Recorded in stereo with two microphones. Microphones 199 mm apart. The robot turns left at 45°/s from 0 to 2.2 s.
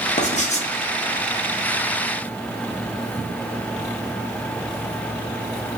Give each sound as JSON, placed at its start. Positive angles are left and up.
{"t": 0.2, "sound": "writing", "side_deg": 35, "distance_m": 0.8}